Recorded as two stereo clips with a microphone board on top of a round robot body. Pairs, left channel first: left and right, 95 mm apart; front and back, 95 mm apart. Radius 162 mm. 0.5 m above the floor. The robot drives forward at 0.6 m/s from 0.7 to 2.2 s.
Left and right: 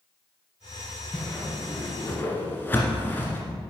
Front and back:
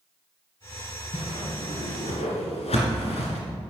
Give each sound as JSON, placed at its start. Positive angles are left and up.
{"t": 1.1, "sound": "a whoosh", "azimuth_deg": 15, "distance_m": 2.5}